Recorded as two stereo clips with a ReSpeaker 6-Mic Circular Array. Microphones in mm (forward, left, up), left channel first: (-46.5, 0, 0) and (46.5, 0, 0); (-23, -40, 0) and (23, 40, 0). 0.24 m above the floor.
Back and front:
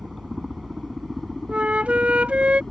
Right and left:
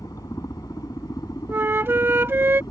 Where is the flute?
55° left.